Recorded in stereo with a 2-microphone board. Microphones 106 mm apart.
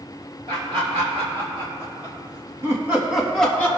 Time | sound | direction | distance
0.5 | laughter | 70° right (ahead or behind) | 2.5 m